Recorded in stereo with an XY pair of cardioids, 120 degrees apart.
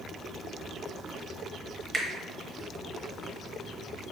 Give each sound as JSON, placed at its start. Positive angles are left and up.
{"t": 1.9, "sound": "a finger snap", "azimuth_deg": -20, "distance_m": 1.0}